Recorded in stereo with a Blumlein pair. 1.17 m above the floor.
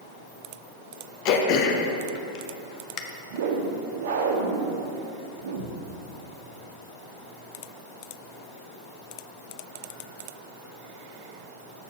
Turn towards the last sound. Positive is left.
turn(degrees=-60)